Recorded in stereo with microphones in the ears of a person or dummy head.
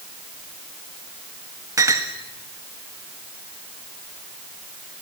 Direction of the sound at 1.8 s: 20° right (ahead or behind).